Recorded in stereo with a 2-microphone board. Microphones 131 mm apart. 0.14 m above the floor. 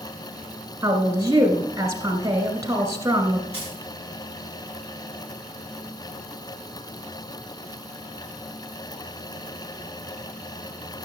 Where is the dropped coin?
45° left (ahead or behind), 8.5 m.